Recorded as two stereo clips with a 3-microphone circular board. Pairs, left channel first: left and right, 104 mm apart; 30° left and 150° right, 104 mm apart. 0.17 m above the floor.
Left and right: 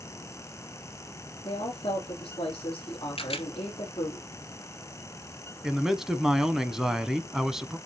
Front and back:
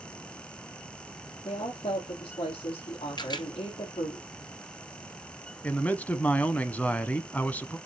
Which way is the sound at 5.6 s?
15° right.